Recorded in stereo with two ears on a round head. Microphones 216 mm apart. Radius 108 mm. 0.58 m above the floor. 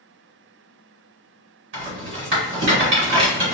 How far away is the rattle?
About 1.7 m.